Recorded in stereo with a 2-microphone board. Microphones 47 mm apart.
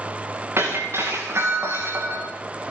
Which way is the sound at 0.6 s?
65° right (ahead or behind).